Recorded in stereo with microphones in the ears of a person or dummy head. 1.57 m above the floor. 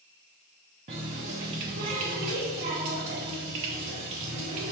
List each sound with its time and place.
0.9 s a running tap: 25° right (ahead or behind), 0.5 m